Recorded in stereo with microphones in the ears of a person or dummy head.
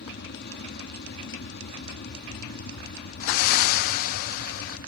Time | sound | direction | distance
0.0 | an aircraft | 45° left (ahead or behind) | ?
3.2 | breathing | 45° left (ahead or behind) | ?